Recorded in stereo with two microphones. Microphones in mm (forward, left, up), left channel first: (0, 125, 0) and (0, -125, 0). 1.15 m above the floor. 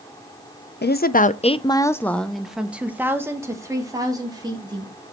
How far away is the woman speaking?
About 0.5 m.